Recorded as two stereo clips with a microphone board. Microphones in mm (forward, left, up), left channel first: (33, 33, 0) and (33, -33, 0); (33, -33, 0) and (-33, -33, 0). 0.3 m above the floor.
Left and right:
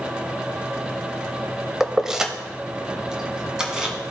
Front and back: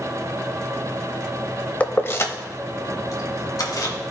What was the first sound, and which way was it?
Keys jangling, 15° right.